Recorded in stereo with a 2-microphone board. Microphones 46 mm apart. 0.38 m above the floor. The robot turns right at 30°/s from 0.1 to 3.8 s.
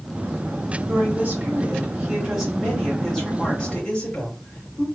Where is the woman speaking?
65° right, 3 m; by 4.8 s 25° left, 3 m.